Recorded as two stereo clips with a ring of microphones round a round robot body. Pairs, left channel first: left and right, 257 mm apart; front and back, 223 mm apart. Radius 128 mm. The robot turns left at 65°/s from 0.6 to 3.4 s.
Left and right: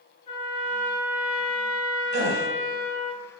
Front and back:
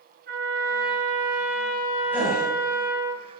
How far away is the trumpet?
About 2.0 m.